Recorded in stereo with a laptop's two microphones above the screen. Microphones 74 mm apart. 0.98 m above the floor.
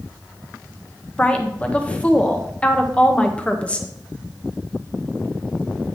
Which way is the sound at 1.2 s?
15° left (ahead or behind).